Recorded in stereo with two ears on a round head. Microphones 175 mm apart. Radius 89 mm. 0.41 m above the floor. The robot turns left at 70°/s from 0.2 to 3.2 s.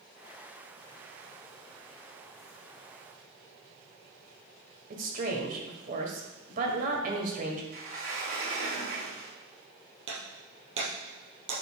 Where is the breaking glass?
70° right (ahead or behind), 3.5 m.